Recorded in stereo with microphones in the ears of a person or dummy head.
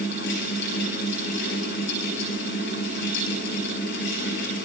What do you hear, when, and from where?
0.0 s a fan: 65° left (ahead or behind), 6.5 m